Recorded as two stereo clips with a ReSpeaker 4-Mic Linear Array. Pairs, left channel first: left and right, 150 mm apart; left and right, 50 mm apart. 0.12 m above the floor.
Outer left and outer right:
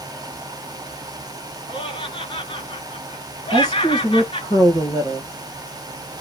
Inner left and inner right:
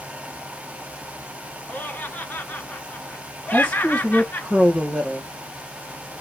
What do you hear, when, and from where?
1.7 s laughter: 40° left (ahead or behind), 1.4 m
3.5 s a woman speaking: 25° left (ahead or behind), 1.7 m